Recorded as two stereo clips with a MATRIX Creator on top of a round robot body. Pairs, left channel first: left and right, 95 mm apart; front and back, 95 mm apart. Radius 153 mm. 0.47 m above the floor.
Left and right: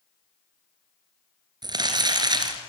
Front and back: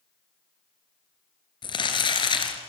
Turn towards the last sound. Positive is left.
turn(degrees=-40)